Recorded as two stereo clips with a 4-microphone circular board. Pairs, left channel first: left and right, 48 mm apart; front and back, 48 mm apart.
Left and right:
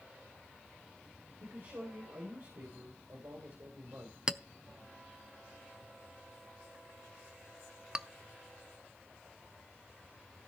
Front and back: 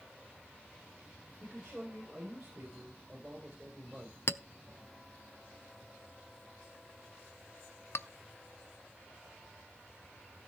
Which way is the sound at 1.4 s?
110° right.